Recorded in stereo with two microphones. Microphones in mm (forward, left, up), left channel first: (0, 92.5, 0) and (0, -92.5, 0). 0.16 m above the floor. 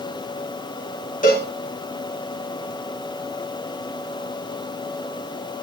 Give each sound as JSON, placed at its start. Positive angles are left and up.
{"t": 1.2, "sound": "a cowbell", "side_deg": 45, "distance_m": 5.0}